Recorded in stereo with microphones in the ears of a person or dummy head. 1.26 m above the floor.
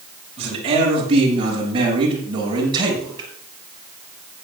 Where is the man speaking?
30° right (ahead or behind), 7 m; by 3.3 s 20° right (ahead or behind), 7 m.